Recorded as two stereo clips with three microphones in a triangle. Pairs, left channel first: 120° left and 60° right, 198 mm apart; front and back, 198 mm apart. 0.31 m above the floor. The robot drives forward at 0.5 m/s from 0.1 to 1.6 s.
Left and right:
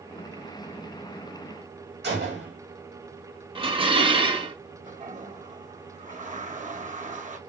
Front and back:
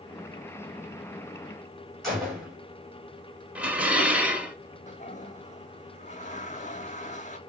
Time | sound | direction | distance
2.0 | a gunshot | 90° right | 2.5 m
3.5 | dishes clattering | 100° right | 0.8 m
4.9 | a toilet flushing | 30° right | 0.6 m